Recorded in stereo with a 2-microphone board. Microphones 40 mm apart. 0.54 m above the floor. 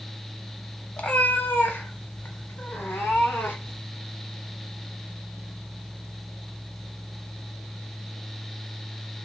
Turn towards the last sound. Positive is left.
turn(degrees=75)  # may be behind; listen again after turning